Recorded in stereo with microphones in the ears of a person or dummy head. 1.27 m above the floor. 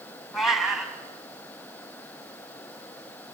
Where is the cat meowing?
Centre (ahead or behind), 3.5 m.